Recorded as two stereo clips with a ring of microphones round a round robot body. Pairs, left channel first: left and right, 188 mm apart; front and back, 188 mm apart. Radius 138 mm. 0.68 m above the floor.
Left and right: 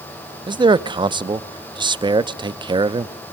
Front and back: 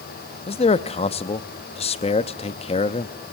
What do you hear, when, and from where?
0.5 s a man speaking: 35° right, 0.7 m